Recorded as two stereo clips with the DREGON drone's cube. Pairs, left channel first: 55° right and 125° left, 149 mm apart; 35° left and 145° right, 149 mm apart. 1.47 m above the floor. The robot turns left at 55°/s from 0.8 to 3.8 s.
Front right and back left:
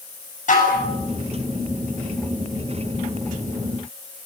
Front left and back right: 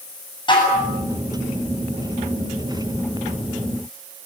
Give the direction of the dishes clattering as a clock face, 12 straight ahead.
1 o'clock.